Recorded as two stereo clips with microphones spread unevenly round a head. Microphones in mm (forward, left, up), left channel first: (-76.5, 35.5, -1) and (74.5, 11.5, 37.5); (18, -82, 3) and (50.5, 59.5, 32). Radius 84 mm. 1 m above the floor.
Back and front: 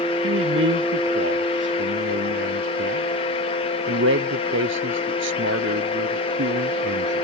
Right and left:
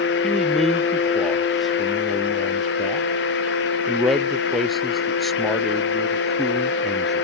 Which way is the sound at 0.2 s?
15° right.